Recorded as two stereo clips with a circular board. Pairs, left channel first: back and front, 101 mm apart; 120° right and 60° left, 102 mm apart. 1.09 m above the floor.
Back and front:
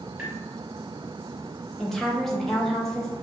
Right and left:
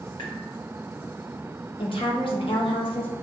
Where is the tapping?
80° right, 1.9 m.